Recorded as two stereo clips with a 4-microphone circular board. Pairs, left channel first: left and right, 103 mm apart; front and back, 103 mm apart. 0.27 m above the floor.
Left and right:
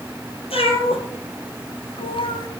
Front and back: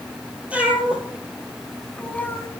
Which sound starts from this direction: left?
A cat meowing, at 0.5 s.